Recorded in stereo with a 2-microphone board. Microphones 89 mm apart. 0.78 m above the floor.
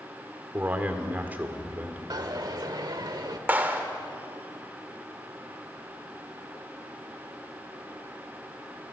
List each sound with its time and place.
0.5 s a man speaking: 20° right (ahead or behind), 2 m
2.1 s a dropped coin: 50° right (ahead or behind), 1.4 m
3.5 s a clap: 20° right (ahead or behind), 2.0 m